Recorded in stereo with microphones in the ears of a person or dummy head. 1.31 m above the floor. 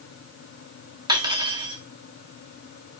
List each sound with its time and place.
1.1 s cutlery clinking: 25° right (ahead or behind), 1.7 m